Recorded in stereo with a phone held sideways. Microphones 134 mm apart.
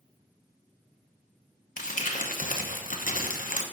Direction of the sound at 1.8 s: 85° left.